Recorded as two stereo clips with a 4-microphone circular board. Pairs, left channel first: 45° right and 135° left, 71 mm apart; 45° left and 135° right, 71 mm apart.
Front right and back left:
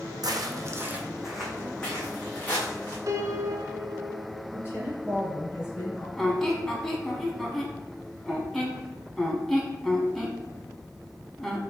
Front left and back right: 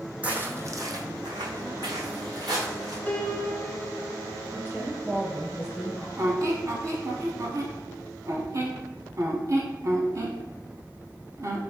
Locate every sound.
0.2 s footsteps: 150° left, 0.7 m; by 3.0 s 105° right, 2.0 m
3.1 s a piano: 110° left, 0.6 m
4.5 s a woman speaking: 85° right, 1.8 m
6.2 s a squeak: 125° right, 0.7 m